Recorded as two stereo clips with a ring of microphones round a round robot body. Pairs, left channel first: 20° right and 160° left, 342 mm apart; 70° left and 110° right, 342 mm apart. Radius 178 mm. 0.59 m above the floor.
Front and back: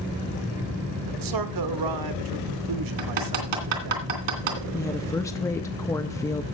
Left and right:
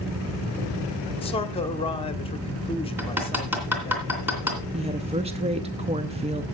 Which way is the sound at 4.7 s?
85° right.